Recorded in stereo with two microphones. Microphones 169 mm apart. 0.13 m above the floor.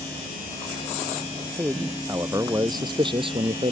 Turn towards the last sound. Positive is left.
turn(degrees=-35)  # may be behind; listen again after turning